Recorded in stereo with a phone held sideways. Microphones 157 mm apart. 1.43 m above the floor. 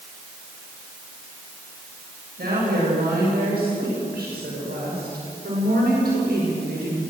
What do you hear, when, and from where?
2.4 s a woman speaking: 85° right, 8 m